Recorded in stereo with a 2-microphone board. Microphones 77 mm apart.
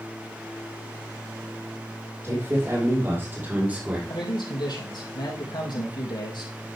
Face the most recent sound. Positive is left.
turn(degrees=70)  # may be behind; listen again after turning